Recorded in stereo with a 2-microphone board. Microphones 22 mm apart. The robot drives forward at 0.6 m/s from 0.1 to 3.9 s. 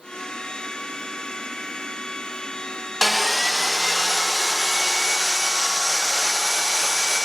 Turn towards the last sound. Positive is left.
turn(degrees=0)  # may be behind; listen again after turning